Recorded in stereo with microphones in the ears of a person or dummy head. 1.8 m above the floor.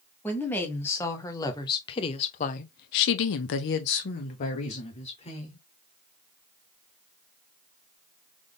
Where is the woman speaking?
10° left (ahead or behind), 1.6 m; by 5.6 s 30° left (ahead or behind), 1.4 m.